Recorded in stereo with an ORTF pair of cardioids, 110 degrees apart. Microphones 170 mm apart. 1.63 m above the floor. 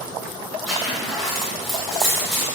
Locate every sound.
0.7 s a zipper: straight ahead, 0.9 m